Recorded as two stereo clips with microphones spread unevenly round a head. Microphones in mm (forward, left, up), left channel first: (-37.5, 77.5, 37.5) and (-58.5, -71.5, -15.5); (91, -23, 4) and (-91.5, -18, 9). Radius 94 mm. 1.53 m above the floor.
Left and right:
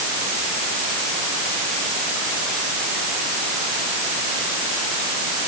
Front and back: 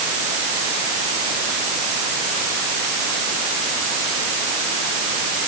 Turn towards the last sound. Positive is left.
No sound to turn to.